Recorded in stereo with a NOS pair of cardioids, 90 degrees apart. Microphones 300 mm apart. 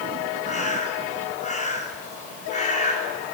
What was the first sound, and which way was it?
A bird, 25° left.